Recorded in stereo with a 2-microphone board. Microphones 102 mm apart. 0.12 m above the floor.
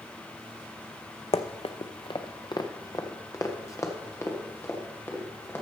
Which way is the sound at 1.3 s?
85° left.